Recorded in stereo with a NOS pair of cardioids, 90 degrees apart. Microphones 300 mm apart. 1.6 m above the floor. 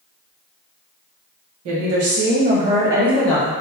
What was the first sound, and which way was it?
A woman speaking, 70° right.